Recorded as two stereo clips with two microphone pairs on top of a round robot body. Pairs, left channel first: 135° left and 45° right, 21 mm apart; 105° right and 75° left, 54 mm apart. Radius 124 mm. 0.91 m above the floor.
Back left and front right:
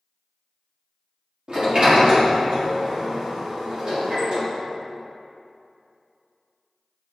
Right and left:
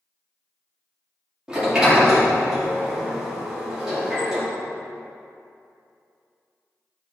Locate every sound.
1.5 s a sliding door: straight ahead, 1.9 m